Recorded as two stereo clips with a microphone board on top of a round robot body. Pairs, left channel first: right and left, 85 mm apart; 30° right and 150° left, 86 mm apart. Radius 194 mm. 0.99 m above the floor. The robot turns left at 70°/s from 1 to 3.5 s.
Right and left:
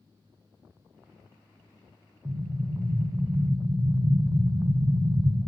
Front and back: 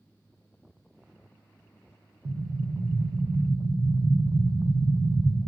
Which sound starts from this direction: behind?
An explosion, at 2.2 s.